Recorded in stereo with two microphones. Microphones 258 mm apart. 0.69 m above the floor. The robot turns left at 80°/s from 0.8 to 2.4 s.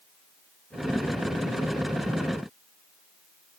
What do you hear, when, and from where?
Only background noise.